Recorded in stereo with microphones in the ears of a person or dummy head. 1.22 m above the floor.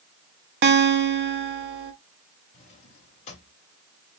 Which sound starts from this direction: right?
A guitar, at 0.6 s.